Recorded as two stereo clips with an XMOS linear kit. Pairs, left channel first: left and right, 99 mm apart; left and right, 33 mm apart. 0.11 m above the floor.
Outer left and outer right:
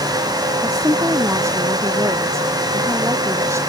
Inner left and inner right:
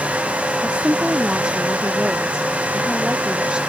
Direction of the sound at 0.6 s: 25° right (ahead or behind).